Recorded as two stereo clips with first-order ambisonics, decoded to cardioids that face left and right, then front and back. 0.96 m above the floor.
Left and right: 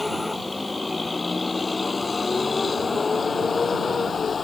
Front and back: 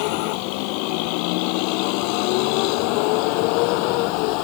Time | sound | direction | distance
0.0 | a vehicle | 5° left | ?